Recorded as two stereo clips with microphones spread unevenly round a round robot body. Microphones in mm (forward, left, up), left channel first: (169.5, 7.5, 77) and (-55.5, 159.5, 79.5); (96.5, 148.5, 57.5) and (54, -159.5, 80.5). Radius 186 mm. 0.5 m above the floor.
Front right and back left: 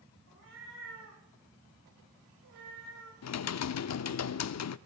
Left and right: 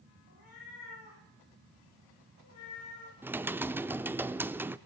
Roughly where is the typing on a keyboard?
Ahead.